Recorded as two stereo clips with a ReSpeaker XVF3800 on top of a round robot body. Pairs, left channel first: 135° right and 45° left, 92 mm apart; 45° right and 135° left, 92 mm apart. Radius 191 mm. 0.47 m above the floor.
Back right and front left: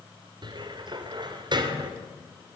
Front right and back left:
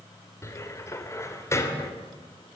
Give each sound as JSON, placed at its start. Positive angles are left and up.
{"t": 0.4, "sound": "a cupboard door", "azimuth_deg": 15, "distance_m": 3.0}